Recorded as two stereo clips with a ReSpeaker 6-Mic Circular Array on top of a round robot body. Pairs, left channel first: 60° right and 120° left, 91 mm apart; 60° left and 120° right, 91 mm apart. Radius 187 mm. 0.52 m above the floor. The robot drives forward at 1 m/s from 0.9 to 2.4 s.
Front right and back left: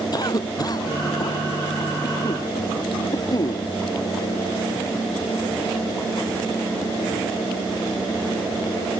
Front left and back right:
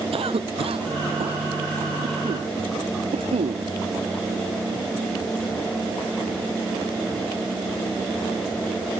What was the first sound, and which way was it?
A cough, 105° right.